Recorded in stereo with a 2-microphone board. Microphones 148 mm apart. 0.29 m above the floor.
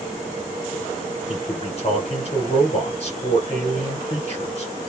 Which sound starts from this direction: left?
A man speaking, at 1.3 s.